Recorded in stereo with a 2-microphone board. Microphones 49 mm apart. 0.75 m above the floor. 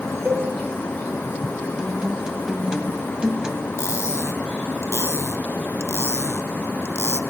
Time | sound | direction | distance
0.2 | a cowbell | 35° right (ahead or behind) | 2.5 m
1.8 | a guitar | 15° right (ahead or behind) | 1.5 m
3.8 | cutlery clinking | 75° left (ahead or behind) | 0.6 m